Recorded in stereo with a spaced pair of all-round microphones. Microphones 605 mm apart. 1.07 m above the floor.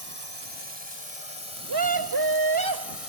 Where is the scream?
40° right (ahead or behind).